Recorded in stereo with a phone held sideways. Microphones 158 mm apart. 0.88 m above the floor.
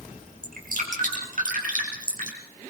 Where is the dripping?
60° right (ahead or behind), 5 m.